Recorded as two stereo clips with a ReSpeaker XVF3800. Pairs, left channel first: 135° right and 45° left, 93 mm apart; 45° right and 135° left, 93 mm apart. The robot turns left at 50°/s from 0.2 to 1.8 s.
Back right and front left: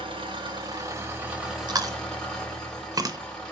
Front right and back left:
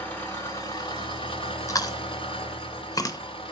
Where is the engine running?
25° left, 1.3 m; by 3.5 s 55° right, 1.3 m.